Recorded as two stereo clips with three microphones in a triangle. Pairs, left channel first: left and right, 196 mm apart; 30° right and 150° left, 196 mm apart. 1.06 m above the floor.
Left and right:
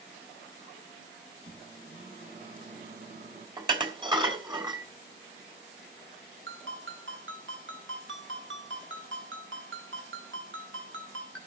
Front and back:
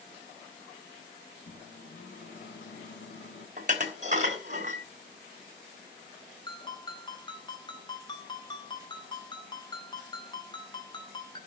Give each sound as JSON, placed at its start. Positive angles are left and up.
{"t": 1.4, "sound": "a microwave", "azimuth_deg": -45, "distance_m": 3.5}
{"t": 3.6, "sound": "dishes clattering", "azimuth_deg": -155, "distance_m": 3.0}
{"t": 6.5, "sound": "a ringtone", "azimuth_deg": -95, "distance_m": 3.5}